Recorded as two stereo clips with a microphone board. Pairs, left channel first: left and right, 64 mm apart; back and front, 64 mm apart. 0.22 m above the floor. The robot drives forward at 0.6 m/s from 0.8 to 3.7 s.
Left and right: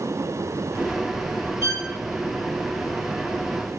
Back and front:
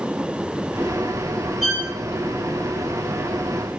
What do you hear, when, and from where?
1.6 s a violin: 100° left, 4.5 m